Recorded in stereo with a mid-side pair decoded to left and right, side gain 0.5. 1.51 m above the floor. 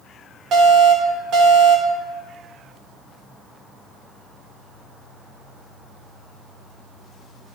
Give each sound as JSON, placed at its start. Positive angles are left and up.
{"t": 0.5, "sound": "an alarm", "azimuth_deg": -65, "distance_m": 5.0}